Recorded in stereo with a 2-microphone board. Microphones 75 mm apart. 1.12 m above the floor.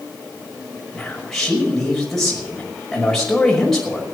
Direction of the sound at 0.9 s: 5° left (ahead or behind).